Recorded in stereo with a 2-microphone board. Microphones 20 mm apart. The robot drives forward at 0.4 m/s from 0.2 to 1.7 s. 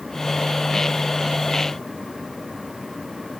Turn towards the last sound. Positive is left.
No sound to turn to.